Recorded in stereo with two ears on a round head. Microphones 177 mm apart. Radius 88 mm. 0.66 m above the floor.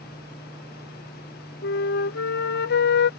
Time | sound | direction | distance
1.6 | a flute | 55° left (ahead or behind) | ?